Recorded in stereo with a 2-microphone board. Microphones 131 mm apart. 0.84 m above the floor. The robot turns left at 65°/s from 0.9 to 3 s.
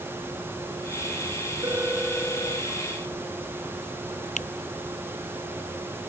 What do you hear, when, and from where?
1.6 s a phone ringing: 150° right; by 2.7 s 140° left
4.4 s a camera shutter: 70° left (ahead or behind)